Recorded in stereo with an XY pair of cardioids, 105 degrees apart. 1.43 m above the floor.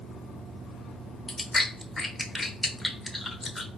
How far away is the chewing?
About 0.8 m.